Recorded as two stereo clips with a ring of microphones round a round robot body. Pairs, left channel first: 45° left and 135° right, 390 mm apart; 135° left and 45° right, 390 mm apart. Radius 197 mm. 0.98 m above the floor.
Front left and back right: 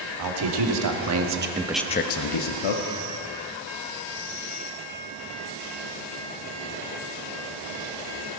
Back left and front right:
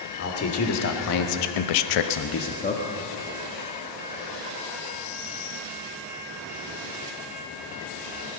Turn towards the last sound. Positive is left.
turn(degrees=60)